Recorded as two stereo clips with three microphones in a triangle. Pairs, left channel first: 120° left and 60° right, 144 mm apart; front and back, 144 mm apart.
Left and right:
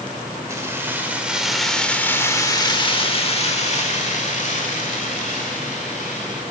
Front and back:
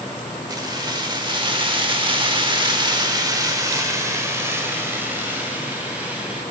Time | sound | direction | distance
0.5 | keys jangling | 125° right | 1.3 m